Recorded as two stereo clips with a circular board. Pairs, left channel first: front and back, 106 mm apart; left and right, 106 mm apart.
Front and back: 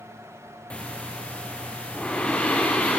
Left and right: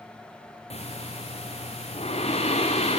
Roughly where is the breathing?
Left.